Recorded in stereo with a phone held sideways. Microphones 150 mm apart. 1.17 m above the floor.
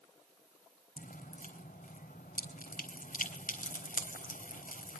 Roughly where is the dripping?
Left.